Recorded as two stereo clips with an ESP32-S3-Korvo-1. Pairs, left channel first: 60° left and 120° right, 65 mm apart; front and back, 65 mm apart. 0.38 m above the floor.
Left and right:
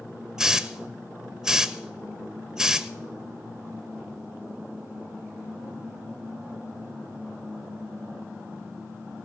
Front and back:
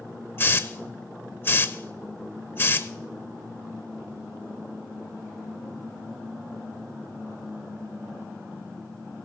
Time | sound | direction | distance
0.4 | a hiss | 45° right | 0.7 m